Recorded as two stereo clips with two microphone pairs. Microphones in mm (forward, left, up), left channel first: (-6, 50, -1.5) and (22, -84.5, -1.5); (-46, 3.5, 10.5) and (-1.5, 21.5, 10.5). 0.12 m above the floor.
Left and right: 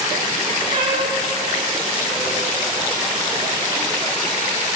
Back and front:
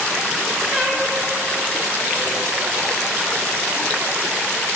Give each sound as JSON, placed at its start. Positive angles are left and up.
{"t": 0.7, "sound": "a cat meowing", "azimuth_deg": -80, "distance_m": 6.5}